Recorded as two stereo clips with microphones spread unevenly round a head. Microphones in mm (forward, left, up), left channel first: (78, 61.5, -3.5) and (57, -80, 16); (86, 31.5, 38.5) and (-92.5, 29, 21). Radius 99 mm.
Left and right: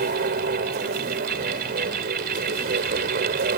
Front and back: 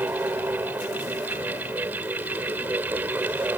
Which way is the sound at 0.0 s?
95° right.